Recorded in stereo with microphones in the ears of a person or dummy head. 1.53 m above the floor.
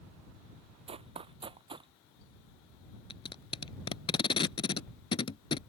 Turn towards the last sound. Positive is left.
turn(degrees=25)  # may be behind; listen again after turning